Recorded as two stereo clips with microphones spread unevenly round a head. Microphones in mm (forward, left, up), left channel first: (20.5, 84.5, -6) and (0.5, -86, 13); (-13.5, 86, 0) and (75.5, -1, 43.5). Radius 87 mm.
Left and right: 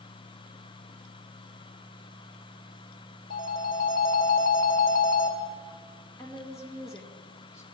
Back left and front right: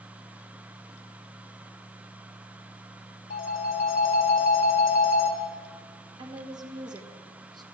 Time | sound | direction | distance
3.3 | a phone ringing | 125° left | 1.1 m
6.2 | a woman speaking | 5° left | 1.7 m